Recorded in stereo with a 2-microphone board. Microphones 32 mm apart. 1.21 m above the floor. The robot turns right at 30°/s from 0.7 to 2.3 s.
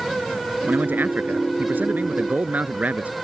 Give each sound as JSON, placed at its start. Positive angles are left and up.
{"t": 0.6, "sound": "a man speaking", "azimuth_deg": -105}